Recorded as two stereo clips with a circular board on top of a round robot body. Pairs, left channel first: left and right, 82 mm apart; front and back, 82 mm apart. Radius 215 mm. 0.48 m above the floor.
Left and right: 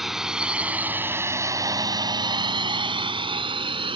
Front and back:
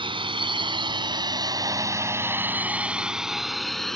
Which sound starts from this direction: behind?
A drone, at 0.0 s.